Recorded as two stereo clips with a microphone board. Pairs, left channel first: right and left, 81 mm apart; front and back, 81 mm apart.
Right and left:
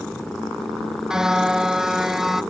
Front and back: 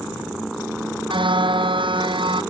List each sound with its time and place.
1.1 s a car horn: 175° left